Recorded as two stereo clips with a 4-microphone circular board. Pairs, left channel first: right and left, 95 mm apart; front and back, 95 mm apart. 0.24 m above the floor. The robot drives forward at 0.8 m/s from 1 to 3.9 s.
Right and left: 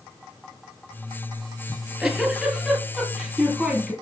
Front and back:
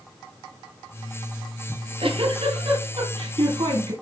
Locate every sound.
1.7 s a giggle: 175° left, 2.5 m; by 3.9 s straight behind, 4 m